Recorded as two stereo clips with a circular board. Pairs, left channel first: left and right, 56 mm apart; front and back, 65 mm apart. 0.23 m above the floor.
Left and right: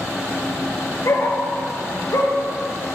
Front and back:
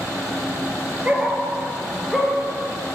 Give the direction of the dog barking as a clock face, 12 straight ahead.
8 o'clock.